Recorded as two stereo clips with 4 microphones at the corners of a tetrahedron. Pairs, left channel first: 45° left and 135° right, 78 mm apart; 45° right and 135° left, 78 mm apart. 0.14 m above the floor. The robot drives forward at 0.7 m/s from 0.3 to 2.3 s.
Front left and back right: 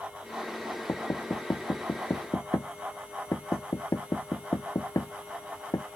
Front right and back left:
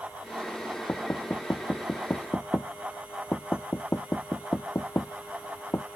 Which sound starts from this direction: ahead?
Knocking, at 0.9 s.